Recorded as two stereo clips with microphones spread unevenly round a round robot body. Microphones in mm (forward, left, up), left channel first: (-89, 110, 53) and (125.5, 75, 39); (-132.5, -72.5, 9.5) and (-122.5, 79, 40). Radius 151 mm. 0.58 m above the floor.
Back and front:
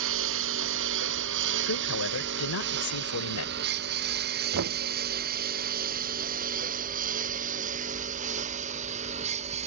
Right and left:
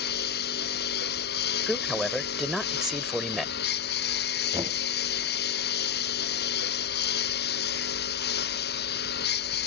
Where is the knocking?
10° left.